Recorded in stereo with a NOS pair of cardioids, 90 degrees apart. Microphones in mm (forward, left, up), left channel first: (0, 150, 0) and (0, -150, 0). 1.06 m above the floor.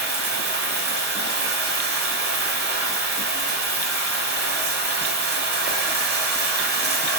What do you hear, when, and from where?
0.0 s running water: 35° right, 1.0 m